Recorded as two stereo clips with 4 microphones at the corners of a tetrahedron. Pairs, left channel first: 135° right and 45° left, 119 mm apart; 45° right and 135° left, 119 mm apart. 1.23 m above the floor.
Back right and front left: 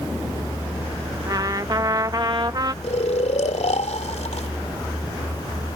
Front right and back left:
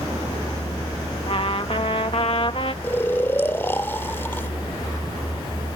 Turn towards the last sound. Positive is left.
turn(degrees=-115)